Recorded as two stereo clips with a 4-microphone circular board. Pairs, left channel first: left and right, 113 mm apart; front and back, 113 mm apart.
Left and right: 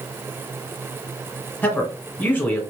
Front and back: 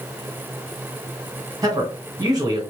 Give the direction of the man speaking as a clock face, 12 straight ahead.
7 o'clock.